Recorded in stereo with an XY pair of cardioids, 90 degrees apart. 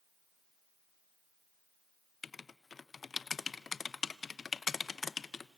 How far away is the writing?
About 0.6 m.